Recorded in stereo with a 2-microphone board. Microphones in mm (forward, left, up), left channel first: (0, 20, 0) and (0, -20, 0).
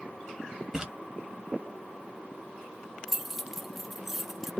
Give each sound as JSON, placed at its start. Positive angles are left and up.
{"t": 0.7, "sound": "a splash", "side_deg": -15, "distance_m": 1.2}
{"t": 3.1, "sound": "keys jangling", "side_deg": -5, "distance_m": 0.6}